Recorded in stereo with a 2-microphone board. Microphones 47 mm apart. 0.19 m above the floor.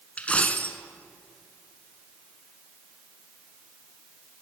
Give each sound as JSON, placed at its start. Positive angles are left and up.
{"t": 0.2, "sound": "a dropped coin", "side_deg": 25, "distance_m": 0.8}